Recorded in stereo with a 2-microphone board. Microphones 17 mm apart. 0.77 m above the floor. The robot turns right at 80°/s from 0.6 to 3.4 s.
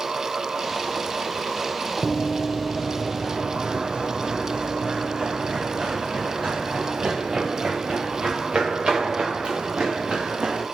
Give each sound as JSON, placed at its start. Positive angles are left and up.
{"t": 2.0, "sound": "running footsteps", "side_deg": 5, "distance_m": 0.9}